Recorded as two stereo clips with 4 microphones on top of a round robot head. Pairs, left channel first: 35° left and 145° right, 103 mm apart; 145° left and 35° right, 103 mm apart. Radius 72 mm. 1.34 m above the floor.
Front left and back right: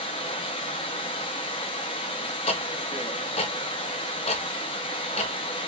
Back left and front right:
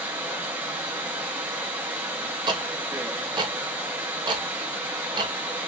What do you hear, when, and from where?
0.0 s running water: 30° left, 0.8 m
2.5 s ticking: 10° left, 0.5 m